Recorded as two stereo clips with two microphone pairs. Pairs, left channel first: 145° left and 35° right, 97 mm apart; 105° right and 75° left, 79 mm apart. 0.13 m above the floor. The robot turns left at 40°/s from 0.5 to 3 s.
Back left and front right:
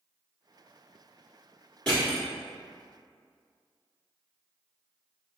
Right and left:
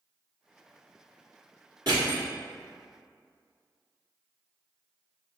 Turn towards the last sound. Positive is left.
turn(degrees=20)